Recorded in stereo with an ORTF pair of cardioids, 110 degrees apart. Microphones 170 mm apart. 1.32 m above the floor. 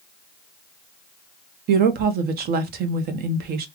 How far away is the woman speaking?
About 0.9 m.